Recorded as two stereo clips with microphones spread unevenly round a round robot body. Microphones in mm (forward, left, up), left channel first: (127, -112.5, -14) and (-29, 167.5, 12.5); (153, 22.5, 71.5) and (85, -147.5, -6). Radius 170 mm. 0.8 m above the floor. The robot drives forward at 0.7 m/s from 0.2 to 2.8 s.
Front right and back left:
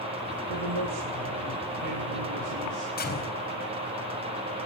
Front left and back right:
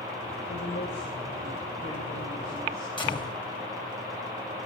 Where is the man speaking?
125° left, 3.5 m; by 2.9 s 145° left, 4.5 m.